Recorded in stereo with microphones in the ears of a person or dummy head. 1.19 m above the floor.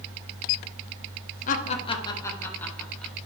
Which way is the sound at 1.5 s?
45° left (ahead or behind).